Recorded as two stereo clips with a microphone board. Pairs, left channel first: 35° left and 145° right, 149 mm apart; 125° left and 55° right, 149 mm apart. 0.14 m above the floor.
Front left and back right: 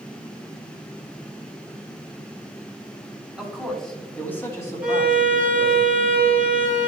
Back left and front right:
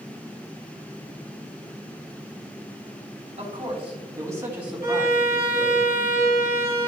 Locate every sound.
3.4 s a man speaking: 60° right, 2.5 m; by 5.8 s 75° left, 2.5 m
4.8 s a violin: 135° left, 2 m